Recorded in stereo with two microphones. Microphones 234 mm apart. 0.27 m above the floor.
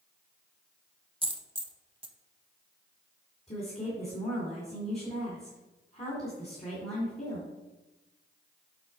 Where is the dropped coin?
25° right (ahead or behind), 0.8 m.